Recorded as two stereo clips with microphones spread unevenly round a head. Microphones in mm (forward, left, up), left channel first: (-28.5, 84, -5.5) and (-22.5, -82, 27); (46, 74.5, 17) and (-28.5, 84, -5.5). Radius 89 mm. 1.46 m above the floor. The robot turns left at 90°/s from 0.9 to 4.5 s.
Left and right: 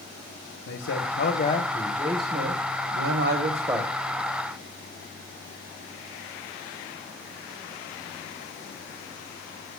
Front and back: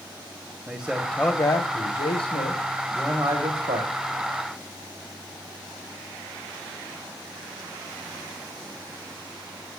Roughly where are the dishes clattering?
No dishes clattering in this recording.